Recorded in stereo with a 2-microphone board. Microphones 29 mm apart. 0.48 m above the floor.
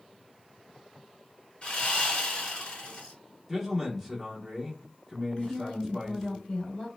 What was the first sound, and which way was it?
Sawing, 40° left (ahead or behind).